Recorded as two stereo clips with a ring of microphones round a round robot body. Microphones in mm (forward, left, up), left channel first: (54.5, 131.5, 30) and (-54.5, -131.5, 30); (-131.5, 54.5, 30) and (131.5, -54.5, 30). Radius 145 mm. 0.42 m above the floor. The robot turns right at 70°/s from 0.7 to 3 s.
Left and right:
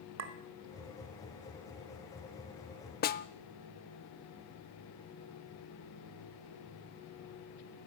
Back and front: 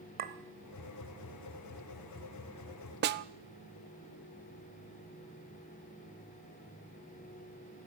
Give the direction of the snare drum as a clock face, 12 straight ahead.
11 o'clock.